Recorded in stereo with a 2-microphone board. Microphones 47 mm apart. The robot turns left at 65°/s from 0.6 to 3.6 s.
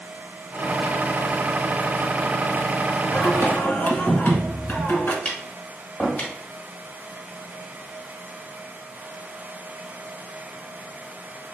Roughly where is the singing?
Left.